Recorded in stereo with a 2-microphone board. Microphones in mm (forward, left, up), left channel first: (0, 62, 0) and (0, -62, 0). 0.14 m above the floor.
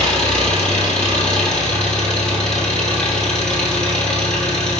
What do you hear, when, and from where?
0.0 s an engine running: 5° left (ahead or behind), 2.5 m